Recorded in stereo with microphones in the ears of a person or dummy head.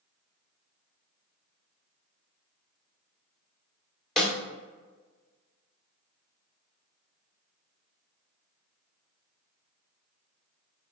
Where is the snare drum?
Centre (ahead or behind), 1.8 m.